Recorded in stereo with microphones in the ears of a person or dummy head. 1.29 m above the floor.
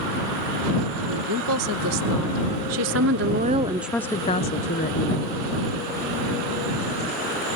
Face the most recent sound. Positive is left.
turn(degrees=50)  # may be behind; listen again after turning